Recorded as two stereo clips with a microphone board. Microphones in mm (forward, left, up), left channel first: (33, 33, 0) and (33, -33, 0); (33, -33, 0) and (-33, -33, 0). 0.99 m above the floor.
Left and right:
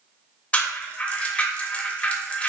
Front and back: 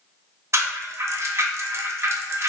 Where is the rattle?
155° left, 0.7 m.